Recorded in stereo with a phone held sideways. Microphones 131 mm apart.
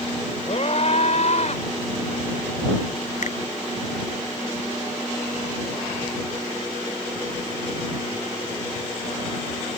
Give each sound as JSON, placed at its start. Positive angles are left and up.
{"t": 0.5, "sound": "a scream", "side_deg": 55}
{"t": 3.2, "sound": "a finger snap", "side_deg": 65}